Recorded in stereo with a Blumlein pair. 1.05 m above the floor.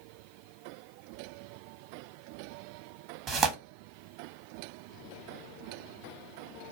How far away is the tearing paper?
About 0.9 m.